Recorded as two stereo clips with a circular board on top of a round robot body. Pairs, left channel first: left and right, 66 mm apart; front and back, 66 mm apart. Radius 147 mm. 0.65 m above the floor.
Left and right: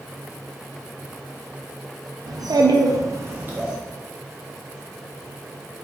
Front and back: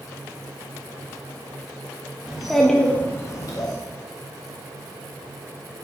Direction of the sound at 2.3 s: 100° right.